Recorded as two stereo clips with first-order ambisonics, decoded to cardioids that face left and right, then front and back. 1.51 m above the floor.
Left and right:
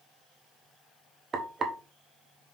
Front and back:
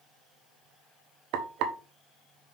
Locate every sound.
1.3 s frying: 155° right, 1.1 m